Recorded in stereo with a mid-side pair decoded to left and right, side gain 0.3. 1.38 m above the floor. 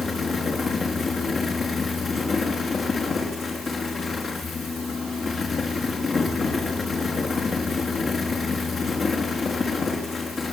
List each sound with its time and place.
0.0 s a fan: 65° left, 4 m